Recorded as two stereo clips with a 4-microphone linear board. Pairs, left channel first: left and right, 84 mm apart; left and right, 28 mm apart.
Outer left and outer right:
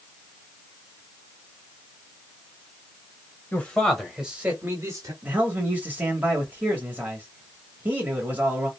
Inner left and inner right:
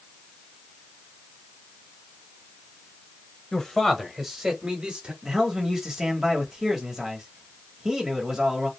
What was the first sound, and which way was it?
A man speaking, 20° left (ahead or behind).